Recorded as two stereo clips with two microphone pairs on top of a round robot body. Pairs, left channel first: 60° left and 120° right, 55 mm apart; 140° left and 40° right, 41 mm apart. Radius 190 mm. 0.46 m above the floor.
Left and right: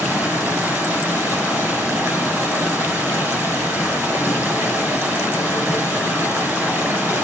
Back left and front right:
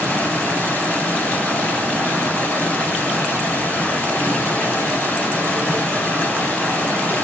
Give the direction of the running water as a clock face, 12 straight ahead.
6 o'clock.